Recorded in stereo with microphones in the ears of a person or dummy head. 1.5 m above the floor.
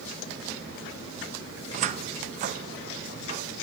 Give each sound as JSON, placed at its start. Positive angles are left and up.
{"t": 1.7, "sound": "a cupboard door", "side_deg": -40, "distance_m": 0.6}